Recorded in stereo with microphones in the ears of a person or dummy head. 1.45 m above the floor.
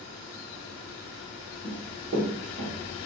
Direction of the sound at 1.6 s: 25° right (ahead or behind).